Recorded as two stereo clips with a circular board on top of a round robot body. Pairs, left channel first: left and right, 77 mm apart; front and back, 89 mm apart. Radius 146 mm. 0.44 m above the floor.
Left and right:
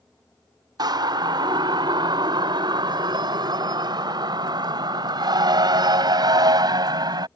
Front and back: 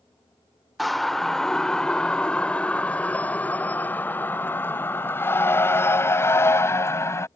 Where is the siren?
90° right; by 7.3 s 60° right.